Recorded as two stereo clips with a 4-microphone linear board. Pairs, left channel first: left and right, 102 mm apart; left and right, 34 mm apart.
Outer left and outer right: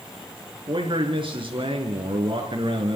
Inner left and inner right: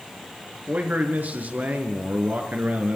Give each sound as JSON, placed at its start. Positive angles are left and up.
{"t": 0.7, "sound": "a man speaking", "side_deg": -55, "distance_m": 3.5}